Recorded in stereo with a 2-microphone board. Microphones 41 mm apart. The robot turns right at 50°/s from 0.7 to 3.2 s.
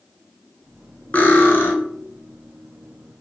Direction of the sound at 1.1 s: 40° left (ahead or behind).